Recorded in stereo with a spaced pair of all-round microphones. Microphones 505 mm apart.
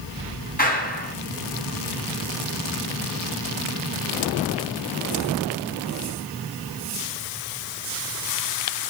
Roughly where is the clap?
Centre.